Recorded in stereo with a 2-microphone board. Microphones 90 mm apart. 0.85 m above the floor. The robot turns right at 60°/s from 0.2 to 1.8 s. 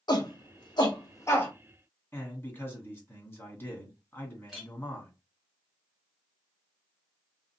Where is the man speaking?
30° left (ahead or behind), 1.8 m.